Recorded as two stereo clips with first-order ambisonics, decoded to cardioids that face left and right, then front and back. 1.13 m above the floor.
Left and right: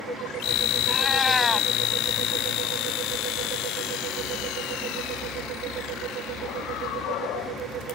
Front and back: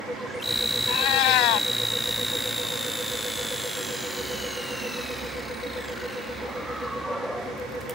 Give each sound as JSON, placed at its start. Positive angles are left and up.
{"t": 0.9, "sound": "a cat meowing", "azimuth_deg": 5}